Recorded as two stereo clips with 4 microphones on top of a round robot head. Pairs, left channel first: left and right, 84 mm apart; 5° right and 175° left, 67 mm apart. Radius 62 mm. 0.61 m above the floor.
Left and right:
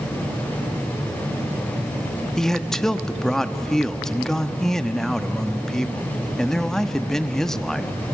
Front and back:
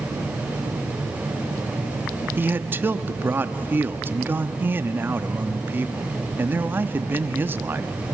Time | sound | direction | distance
2.4 | a man speaking | 170° left | 1.0 m